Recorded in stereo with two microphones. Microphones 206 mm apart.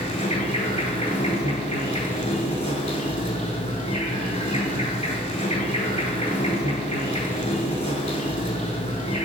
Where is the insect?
30° left (ahead or behind), 0.7 m.